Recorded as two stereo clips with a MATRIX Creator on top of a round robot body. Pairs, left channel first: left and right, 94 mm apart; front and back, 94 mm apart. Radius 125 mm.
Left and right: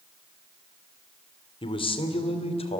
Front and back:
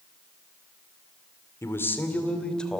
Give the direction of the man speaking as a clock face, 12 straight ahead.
10 o'clock.